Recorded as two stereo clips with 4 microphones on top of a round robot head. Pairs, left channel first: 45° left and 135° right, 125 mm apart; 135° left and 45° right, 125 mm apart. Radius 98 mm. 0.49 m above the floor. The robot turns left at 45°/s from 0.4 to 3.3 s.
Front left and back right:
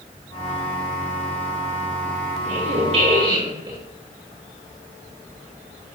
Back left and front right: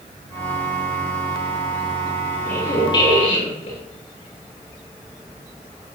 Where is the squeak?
150° right, 7 m; by 3.8 s 175° left, 7 m.